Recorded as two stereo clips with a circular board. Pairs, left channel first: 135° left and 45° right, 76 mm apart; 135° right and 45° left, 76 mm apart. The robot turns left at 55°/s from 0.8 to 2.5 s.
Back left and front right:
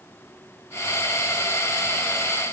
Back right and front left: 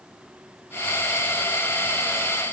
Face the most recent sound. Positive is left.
No sound to turn to.